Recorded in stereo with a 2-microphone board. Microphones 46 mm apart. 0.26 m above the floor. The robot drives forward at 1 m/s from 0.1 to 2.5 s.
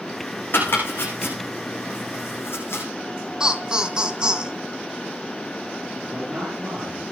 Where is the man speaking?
15° right (ahead or behind), 7.5 m.